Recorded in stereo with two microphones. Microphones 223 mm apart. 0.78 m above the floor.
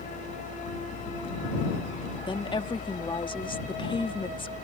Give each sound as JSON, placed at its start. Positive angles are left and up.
{"t": 2.3, "sound": "a woman speaking", "side_deg": 20}